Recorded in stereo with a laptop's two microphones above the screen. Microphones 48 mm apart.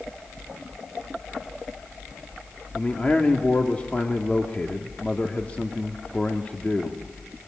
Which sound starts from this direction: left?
A man speaking, at 2.7 s.